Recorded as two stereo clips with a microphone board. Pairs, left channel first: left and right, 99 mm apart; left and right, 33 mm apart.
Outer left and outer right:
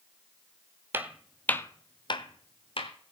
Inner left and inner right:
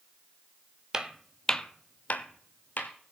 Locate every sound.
0.9 s footsteps: 20° right (ahead or behind), 0.9 m; by 2.9 s 60° left (ahead or behind), 1.6 m